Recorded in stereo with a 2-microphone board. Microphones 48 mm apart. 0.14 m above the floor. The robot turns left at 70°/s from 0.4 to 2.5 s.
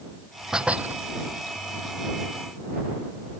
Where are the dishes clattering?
10° right; by 1.0 s 45° right.